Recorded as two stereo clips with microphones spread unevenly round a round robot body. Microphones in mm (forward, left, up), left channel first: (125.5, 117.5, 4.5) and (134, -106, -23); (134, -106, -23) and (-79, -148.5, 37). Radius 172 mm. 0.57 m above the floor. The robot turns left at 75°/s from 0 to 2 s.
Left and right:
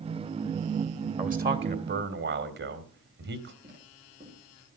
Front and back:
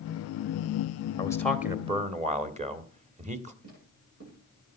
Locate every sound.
1.2 s a man speaking: 40° right, 1.9 m; by 3.5 s 100° right, 1.9 m
3.6 s footsteps: 170° right, 9 m